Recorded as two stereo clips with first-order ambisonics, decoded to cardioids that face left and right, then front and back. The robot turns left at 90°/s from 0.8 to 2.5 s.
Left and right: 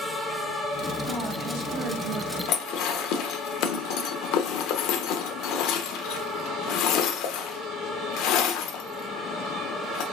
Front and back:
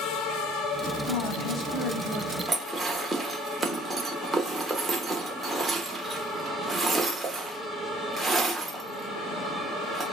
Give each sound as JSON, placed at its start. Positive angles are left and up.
{"t": 1.1, "sound": "a woman speaking", "azimuth_deg": -15, "distance_m": 1.2}
{"t": 2.5, "sound": "dishes clattering", "azimuth_deg": 105, "distance_m": 0.8}